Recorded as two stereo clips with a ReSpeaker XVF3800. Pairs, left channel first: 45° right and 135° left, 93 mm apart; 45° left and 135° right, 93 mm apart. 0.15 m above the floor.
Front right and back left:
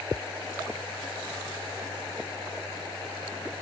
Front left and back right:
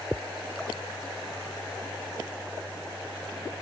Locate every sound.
Only background noise.